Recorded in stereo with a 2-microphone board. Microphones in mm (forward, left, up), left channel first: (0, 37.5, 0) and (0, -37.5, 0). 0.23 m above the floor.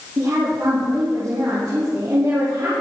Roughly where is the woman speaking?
Right.